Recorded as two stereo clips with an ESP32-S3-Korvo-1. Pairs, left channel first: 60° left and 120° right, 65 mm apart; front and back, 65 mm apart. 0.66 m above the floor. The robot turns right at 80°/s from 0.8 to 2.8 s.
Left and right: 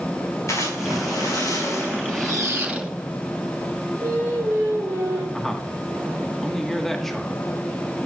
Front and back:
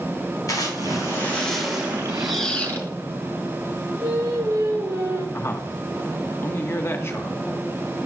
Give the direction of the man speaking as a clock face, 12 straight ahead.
1 o'clock.